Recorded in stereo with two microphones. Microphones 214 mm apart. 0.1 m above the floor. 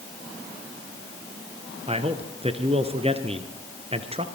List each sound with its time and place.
1.9 s a man speaking: 30° right (ahead or behind), 1.7 m